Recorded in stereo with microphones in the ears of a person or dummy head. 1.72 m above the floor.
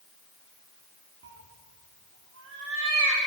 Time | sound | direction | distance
1.2 | a cat meowing | 65° right (ahead or behind) | 2 m